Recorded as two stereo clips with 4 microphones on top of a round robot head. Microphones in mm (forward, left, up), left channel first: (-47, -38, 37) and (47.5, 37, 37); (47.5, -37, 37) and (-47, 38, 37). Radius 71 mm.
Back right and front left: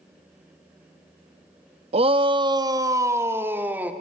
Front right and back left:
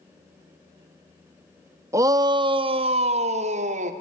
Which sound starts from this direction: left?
A shout, at 1.9 s.